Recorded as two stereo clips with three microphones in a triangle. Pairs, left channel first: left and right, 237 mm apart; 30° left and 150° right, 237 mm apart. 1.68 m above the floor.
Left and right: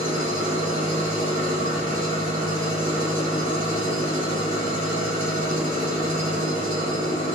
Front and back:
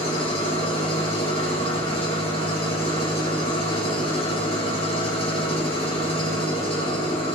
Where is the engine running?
35° right, 4.5 m.